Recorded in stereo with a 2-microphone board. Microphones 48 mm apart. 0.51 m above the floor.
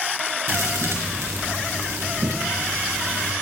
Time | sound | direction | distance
0.5 | a thud | 80° right | 3.5 m